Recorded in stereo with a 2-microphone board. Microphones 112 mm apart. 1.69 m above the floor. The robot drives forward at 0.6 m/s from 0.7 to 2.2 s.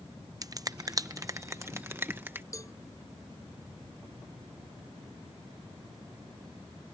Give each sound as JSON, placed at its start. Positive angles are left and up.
{"t": 0.4, "sound": "a finger snap", "side_deg": -35}
{"t": 2.5, "sound": "a cowbell", "side_deg": 30}